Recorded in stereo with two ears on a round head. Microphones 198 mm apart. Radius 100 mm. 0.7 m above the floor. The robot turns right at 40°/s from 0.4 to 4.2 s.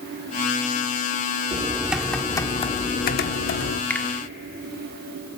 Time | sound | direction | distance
1.5 | typing on a keyboard | 20° right | 1.0 m
3.9 | a finger snap | 10° left (ahead or behind) | 1.3 m